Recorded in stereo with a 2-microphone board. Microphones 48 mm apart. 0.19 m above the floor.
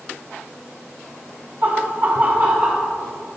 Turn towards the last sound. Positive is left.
turn(degrees=-20)  # may be behind; listen again after turning